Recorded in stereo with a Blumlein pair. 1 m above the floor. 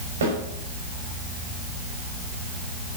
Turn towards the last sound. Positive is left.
turn(degrees=-65)